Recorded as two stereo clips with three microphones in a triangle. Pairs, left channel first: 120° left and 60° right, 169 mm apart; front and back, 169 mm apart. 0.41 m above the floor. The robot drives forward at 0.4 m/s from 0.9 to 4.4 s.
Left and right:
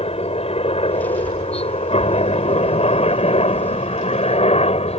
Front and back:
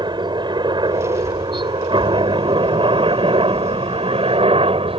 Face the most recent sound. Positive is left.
turn(degrees=145)